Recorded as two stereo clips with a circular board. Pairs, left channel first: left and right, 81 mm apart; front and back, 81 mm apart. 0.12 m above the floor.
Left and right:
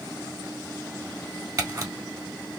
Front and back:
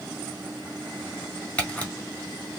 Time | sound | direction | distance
1.6 | a camera shutter | 65° right | 1.4 m